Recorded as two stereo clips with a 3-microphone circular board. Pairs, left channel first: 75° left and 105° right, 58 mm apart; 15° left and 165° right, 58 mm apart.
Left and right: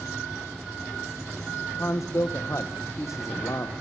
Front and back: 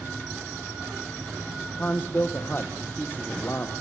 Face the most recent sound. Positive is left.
turn(degrees=65)